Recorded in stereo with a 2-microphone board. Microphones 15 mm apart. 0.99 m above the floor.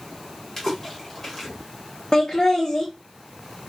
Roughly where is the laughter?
Left.